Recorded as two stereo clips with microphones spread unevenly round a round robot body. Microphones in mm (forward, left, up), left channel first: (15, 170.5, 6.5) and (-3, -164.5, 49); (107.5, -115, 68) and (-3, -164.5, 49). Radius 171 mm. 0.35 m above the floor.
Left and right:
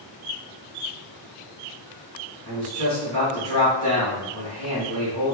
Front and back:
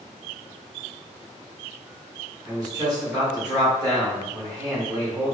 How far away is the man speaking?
About 1.4 m.